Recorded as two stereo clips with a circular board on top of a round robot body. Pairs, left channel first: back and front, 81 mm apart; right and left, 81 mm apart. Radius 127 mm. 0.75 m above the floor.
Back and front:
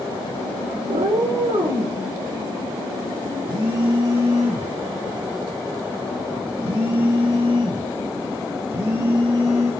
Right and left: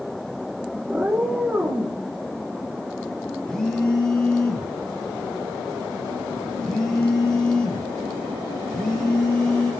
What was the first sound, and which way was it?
A cat meowing, 5° left.